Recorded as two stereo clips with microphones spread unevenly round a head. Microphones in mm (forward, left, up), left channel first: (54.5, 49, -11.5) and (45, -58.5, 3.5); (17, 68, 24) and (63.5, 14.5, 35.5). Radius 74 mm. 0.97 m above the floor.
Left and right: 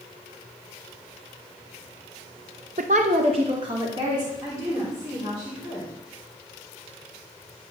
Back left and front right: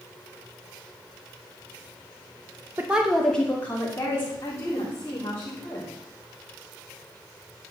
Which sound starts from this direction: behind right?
A woman speaking, at 2.8 s.